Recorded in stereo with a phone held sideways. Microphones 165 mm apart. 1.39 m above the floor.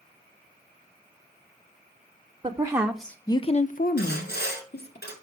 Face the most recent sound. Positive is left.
turn(degrees=80)